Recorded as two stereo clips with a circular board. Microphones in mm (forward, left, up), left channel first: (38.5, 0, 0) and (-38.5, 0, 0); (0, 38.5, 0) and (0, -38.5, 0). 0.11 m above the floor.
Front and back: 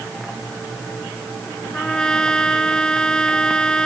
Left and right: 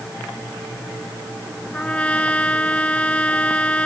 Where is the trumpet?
60° left.